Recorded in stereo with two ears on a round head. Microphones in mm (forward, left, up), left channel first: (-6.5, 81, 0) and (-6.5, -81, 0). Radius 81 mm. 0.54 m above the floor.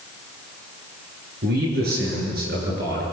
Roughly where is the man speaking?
Right.